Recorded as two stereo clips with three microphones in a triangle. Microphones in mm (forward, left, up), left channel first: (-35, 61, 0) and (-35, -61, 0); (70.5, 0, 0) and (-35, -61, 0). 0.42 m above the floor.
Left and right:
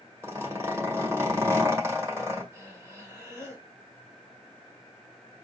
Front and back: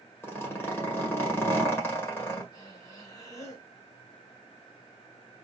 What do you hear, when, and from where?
0.2 s a zipper: 35° right, 1.9 m
2.5 s breathing: 30° right, 1.7 m